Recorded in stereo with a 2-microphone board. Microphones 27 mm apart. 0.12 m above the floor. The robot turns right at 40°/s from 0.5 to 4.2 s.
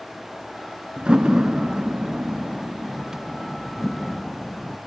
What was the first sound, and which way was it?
A door slam, 30° right (ahead or behind).